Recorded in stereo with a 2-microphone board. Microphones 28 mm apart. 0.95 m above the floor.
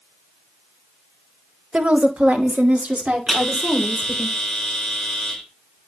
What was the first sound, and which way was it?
A woman speaking, 50° right (ahead or behind).